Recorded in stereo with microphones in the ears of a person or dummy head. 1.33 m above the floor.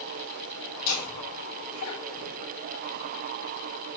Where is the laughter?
70° left (ahead or behind), 2.5 m.